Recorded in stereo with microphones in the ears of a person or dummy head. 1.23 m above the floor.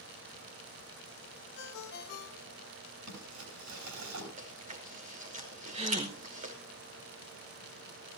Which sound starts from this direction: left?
A ringtone, at 1.6 s.